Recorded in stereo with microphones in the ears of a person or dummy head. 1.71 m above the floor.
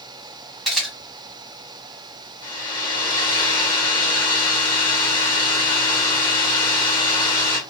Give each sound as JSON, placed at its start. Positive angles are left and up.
{"t": 0.7, "sound": "a camera shutter", "side_deg": 0, "distance_m": 1.3}
{"t": 2.4, "sound": "a hair dryer", "side_deg": 20, "distance_m": 0.8}